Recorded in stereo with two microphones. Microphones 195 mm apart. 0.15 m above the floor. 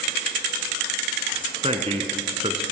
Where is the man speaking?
30° right (ahead or behind), 1.5 m.